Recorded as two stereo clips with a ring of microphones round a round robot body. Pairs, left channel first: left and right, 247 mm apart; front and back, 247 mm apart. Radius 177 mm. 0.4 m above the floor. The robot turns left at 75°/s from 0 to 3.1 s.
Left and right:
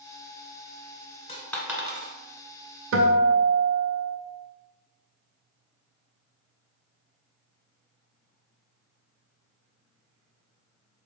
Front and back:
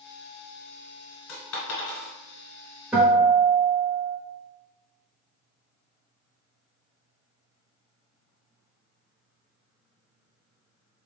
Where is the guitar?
95° right, 0.6 m; by 4.2 s 110° right, 0.6 m.